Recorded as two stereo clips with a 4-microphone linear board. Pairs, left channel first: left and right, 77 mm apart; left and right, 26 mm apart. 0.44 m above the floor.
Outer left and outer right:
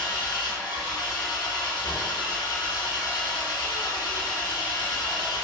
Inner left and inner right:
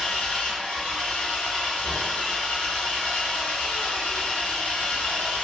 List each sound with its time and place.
0.0 s an engine running: 75° left (ahead or behind), 1.4 m